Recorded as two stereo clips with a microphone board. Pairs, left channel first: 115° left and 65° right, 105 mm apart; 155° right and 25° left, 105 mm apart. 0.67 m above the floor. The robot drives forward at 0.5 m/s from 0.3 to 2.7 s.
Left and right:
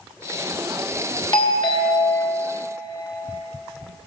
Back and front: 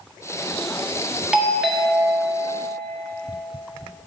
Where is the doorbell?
100° left, 1.3 m; by 2.4 s 125° left, 1.5 m.